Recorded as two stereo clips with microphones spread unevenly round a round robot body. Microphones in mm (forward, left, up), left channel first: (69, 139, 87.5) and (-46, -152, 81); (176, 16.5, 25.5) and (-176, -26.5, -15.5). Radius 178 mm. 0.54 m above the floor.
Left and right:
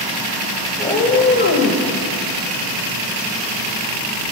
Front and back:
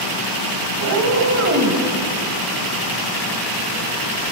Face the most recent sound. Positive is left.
turn(degrees=120)